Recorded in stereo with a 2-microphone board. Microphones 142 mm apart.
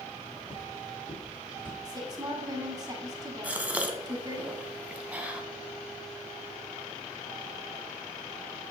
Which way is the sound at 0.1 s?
55° left (ahead or behind).